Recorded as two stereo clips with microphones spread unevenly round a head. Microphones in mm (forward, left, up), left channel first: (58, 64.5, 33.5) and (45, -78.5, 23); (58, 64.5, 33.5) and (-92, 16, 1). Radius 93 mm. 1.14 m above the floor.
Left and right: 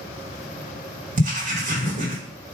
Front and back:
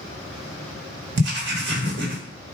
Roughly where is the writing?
Behind right.